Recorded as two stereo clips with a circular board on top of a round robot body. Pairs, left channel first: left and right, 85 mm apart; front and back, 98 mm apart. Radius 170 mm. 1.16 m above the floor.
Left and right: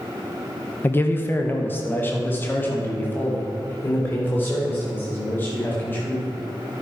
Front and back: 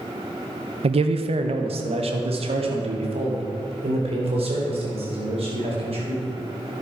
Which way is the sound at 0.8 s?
155° left.